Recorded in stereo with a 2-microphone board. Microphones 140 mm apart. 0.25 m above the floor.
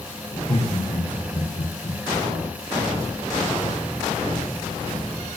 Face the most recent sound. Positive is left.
turn(degrees=65)  # may be behind; listen again after turning